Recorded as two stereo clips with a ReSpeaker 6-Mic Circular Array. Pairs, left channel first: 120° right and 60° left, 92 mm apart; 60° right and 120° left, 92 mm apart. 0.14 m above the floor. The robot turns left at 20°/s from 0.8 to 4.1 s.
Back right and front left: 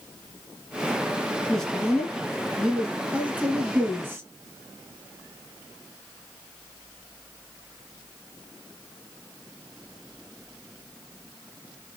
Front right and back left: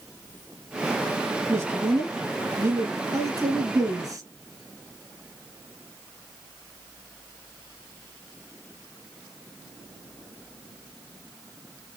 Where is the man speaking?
165° left, 1.8 m; by 4.2 s 110° left, 1.8 m.